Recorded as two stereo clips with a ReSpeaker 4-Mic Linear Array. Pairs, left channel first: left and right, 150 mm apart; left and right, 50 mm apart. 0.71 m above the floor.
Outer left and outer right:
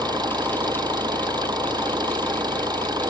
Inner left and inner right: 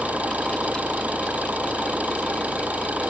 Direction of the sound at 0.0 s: 25° right (ahead or behind).